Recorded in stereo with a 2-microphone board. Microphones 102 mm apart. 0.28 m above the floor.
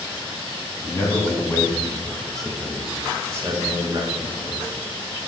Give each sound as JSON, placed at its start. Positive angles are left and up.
{"t": 0.8, "sound": "a man speaking", "side_deg": 30, "distance_m": 3.0}